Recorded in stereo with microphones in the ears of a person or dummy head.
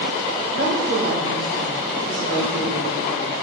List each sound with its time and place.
0.5 s a woman speaking: 70° right (ahead or behind), 4.5 m